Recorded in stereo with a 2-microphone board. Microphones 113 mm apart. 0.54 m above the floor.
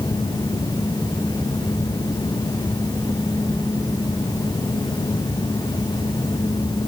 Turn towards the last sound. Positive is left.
No sound to turn to.